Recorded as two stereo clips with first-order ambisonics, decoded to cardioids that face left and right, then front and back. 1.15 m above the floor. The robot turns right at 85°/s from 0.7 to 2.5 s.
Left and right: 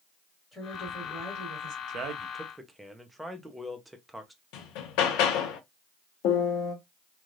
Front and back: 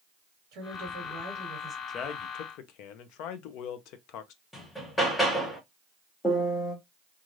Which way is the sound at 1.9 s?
55° right.